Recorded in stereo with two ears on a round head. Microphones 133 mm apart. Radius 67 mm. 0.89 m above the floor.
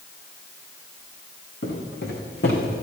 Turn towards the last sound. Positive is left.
turn(degrees=75)  # may be behind; listen again after turning